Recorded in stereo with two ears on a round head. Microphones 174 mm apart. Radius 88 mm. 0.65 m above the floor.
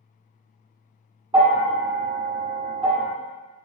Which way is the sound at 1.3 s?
25° right (ahead or behind).